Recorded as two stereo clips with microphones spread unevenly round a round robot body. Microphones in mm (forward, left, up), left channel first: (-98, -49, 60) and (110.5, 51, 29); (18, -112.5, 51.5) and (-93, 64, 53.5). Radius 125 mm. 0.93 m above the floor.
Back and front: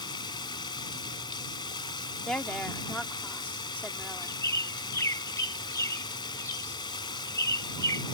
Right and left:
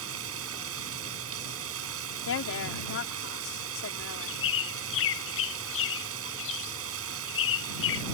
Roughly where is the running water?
Behind left.